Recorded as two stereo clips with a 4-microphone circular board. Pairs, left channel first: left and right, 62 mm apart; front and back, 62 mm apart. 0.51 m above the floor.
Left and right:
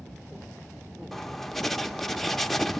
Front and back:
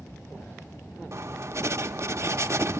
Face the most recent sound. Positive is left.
turn(degrees=175)